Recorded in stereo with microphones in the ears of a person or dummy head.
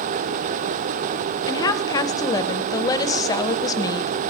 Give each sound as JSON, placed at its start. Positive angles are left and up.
{"t": 1.5, "sound": "a woman speaking", "side_deg": 30, "distance_m": 0.6}